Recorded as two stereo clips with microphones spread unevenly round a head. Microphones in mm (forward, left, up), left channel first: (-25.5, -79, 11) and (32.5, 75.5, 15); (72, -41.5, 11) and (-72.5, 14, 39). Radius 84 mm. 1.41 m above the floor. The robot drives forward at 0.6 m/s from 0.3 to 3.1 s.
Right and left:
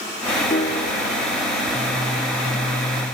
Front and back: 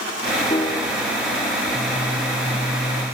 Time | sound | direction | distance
0.5 | a piano | 85° right | 0.9 m